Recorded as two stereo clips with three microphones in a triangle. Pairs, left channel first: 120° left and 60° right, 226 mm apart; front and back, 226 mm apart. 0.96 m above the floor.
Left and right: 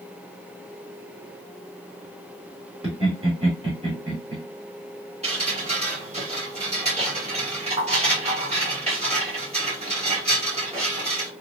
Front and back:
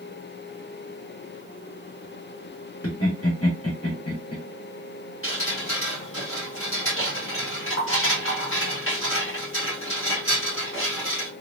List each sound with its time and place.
2.8 s laughter: 5° left, 1.7 m
5.2 s dripping: straight ahead, 1.5 m